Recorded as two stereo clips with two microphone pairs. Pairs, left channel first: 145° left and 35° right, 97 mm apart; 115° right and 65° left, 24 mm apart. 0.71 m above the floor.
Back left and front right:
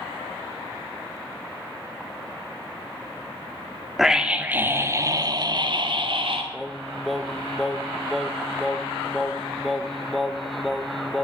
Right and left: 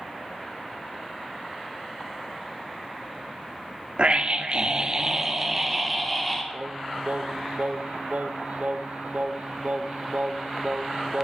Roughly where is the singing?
Ahead left.